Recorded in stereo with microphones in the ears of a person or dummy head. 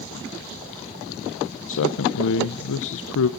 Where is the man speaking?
65° left (ahead or behind), 0.8 m.